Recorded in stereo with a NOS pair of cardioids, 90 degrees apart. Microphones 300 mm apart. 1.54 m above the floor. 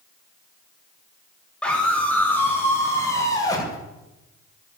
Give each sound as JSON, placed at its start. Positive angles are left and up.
{"t": 1.6, "sound": "a scream", "azimuth_deg": 5, "distance_m": 8.5}